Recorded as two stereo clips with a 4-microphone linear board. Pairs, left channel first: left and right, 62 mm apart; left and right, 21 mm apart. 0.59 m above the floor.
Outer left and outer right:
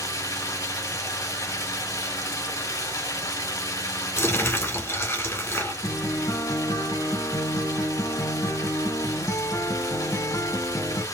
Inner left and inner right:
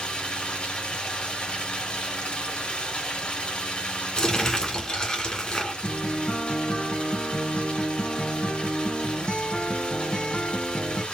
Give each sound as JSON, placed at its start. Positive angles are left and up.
{"t": 0.0, "sound": "running water", "side_deg": 70, "distance_m": 2.0}
{"t": 4.2, "sound": "crumpling", "side_deg": 45, "distance_m": 1.9}
{"t": 5.8, "sound": "a guitar", "side_deg": 80, "distance_m": 2.0}